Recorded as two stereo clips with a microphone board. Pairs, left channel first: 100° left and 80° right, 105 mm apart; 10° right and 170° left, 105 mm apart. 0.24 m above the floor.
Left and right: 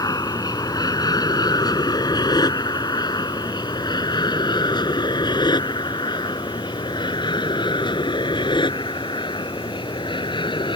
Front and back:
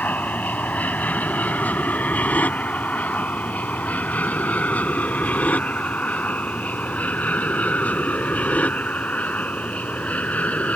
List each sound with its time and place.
0.0 s an aircraft: 60° left; by 10.8 s 65° left